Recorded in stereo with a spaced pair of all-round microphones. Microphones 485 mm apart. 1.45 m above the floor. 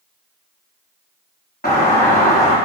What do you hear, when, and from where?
1.6 s a doorbell: 20° left (ahead or behind), 4 m